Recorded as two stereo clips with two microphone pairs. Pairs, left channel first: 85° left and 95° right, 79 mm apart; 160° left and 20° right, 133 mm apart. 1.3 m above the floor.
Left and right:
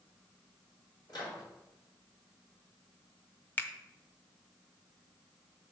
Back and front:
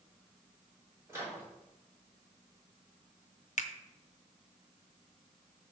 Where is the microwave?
50° left, 3 m.